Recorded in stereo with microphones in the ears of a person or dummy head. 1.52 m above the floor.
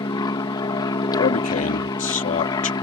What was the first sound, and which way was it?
An aircraft, 20° left (ahead or behind).